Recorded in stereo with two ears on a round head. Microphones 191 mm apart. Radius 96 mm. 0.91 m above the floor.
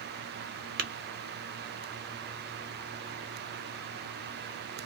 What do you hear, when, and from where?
0.8 s tapping: 45° right (ahead or behind), 0.8 m